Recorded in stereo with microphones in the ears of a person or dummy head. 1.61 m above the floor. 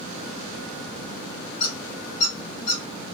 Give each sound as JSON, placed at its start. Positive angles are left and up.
{"t": 1.6, "sound": "a squeak", "side_deg": 45, "distance_m": 1.9}